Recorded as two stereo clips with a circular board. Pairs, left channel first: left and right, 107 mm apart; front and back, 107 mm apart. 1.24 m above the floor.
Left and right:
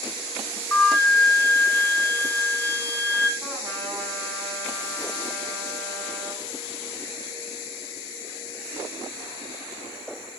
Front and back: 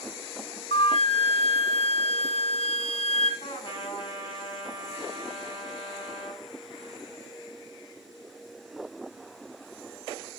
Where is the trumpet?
35° right, 6 m.